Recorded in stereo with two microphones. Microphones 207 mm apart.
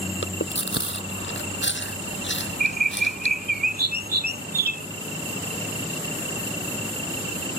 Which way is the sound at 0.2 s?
60° left (ahead or behind).